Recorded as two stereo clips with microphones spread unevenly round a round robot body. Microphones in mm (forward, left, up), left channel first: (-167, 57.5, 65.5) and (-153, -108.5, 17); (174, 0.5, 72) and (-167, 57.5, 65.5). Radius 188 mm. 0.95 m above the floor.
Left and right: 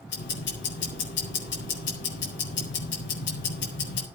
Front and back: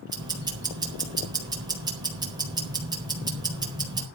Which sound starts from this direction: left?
Ticking, at 0.1 s.